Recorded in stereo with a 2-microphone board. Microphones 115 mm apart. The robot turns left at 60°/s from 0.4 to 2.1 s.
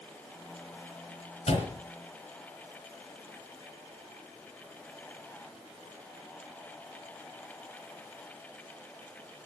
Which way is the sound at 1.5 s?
70° left (ahead or behind).